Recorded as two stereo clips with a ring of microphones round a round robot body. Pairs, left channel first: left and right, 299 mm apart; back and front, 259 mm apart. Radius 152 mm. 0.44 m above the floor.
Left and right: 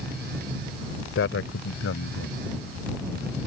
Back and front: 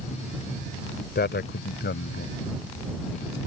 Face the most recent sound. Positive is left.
turn(degrees=135)